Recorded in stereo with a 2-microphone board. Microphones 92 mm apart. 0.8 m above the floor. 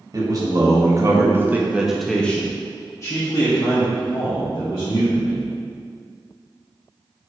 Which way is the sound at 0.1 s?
45° right (ahead or behind).